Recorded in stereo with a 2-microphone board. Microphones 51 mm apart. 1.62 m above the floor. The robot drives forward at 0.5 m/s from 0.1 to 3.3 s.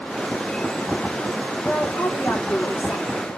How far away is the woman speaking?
About 1.3 m.